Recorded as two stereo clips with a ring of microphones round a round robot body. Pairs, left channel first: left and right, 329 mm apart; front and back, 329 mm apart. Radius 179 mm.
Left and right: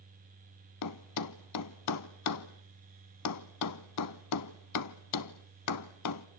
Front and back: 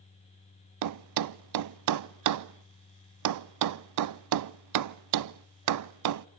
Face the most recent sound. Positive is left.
turn(degrees=140)